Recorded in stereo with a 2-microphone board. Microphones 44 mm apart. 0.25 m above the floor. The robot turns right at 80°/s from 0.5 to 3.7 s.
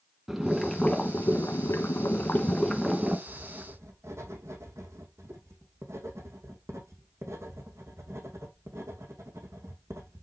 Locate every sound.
0.3 s boiling: 5° right, 1.5 m; by 3.2 s 150° right, 1.5 m
3.3 s writing: 115° right, 2.5 m; by 10.2 s 80° right, 2.5 m